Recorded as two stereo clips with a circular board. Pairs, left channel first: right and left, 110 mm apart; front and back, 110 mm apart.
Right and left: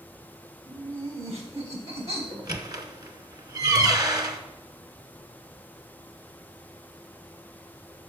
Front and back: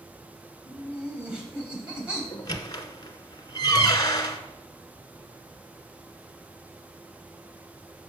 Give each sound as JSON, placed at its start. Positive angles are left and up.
{"t": 0.7, "sound": "laughter", "azimuth_deg": 100, "distance_m": 3.0}
{"t": 2.3, "sound": "a squeak", "azimuth_deg": 45, "distance_m": 0.8}